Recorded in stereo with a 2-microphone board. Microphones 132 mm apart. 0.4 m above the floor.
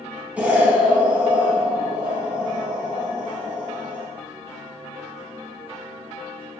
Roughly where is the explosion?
Centre.